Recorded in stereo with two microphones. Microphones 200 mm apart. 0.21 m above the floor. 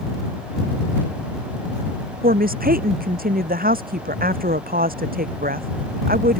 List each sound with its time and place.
2.2 s a woman speaking: 45° right (ahead or behind)